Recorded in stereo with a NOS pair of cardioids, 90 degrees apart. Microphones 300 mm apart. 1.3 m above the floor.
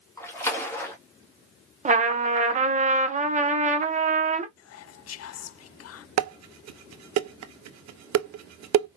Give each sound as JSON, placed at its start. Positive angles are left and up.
{"t": 0.2, "sound": "a splash", "azimuth_deg": 10, "distance_m": 2.0}
{"t": 1.9, "sound": "a trumpet", "azimuth_deg": -25, "distance_m": 1.0}
{"t": 4.6, "sound": "whispering", "azimuth_deg": 55, "distance_m": 0.6}
{"t": 6.2, "sound": "dishes clattering", "azimuth_deg": -65, "distance_m": 0.8}